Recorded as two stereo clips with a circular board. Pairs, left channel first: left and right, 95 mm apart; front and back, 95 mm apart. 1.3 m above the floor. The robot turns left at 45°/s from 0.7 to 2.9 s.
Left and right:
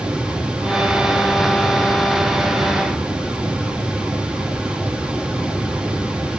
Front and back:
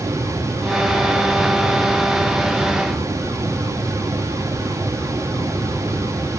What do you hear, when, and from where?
Only background noise.